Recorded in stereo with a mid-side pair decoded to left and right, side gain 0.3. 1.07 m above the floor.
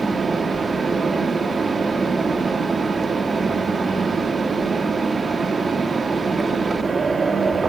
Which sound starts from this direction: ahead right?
A fan, at 0.0 s.